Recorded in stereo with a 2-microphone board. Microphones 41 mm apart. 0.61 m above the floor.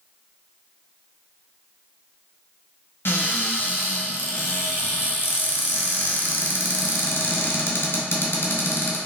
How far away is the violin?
No violin in this recording.